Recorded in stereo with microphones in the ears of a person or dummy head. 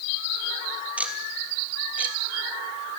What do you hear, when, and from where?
1.0 s ticking: 5° right (ahead or behind), 1.6 m